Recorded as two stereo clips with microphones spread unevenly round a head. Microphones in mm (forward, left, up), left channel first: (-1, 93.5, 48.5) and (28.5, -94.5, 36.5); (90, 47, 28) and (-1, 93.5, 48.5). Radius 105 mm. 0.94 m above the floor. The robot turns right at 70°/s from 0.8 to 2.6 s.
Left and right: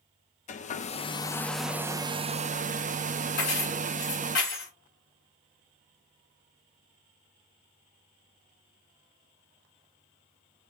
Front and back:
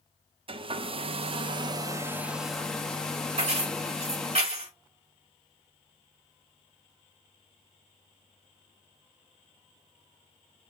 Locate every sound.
0.5 s a hair dryer: 135° left, 0.7 m; by 4.4 s 95° right, 0.7 m
3.4 s keys jangling: 140° left, 3.5 m